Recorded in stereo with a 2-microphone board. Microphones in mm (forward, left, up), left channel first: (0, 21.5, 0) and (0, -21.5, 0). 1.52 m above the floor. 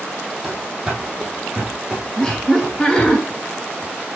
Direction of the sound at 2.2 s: 10° left (ahead or behind).